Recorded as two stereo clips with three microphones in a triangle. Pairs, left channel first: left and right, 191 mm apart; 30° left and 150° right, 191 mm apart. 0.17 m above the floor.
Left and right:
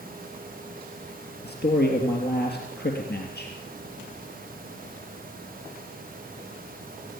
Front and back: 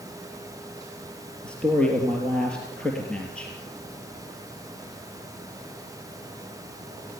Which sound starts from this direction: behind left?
A man speaking, at 1.4 s.